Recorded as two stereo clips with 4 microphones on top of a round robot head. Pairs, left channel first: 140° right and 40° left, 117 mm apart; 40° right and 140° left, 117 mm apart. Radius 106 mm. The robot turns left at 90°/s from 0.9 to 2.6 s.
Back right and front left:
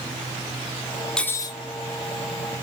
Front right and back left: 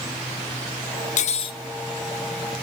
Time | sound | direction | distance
1.2 | cutlery clinking | 55° right | 0.7 m